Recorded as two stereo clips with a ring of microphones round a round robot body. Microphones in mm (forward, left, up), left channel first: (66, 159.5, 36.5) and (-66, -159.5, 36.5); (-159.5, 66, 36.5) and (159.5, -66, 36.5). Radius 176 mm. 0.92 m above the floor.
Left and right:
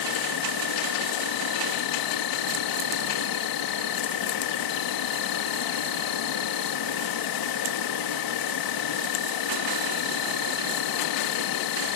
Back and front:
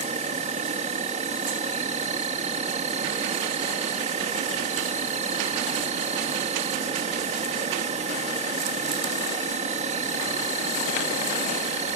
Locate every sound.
0.0 s an insect: 50° left